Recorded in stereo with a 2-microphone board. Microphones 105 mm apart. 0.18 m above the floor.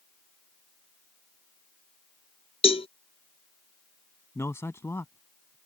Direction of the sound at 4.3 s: 25° left (ahead or behind).